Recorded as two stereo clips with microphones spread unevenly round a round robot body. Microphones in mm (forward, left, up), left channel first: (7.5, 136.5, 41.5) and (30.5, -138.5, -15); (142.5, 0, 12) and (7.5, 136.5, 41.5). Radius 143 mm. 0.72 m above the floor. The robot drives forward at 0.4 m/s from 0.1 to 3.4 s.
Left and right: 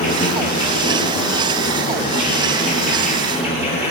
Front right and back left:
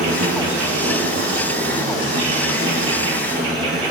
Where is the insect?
160° left, 1.7 m; by 3.9 s 170° left, 3 m.